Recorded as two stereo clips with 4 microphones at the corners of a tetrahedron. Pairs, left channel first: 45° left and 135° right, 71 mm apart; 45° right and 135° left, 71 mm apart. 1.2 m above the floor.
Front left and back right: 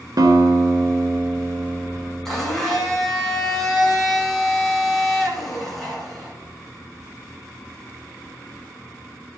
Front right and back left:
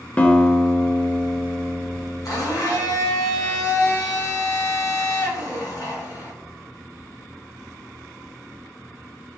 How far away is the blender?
About 1.6 m.